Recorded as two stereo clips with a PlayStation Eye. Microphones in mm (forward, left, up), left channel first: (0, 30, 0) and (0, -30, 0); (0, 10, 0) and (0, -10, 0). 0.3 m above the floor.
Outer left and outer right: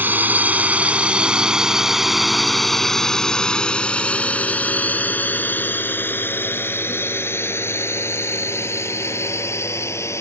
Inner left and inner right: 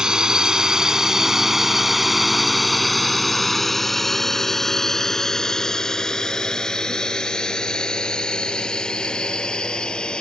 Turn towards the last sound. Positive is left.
turn(degrees=50)  # may be behind; listen again after turning